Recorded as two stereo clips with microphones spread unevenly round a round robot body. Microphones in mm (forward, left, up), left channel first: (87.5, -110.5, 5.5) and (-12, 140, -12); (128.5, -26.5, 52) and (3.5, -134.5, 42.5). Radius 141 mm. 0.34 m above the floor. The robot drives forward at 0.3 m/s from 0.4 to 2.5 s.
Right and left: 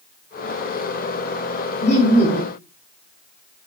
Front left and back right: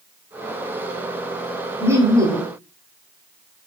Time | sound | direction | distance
1.8 | laughter | 95° right | 0.8 m